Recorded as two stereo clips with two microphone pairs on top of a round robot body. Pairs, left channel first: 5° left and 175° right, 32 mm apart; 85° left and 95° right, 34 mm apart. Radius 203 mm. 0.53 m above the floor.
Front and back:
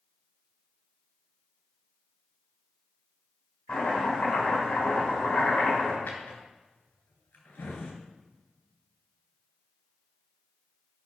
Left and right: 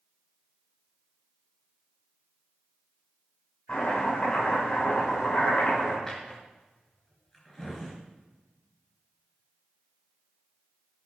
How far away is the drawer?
About 3 m.